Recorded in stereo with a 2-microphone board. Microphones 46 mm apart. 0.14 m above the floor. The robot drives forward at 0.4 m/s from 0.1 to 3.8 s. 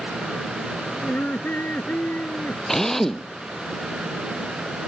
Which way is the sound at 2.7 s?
10° left (ahead or behind).